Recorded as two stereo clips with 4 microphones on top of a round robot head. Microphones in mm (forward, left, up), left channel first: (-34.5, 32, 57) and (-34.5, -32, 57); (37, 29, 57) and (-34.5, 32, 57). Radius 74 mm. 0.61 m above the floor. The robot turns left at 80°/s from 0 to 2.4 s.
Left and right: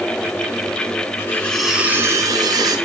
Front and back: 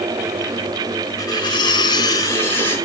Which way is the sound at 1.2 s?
35° left.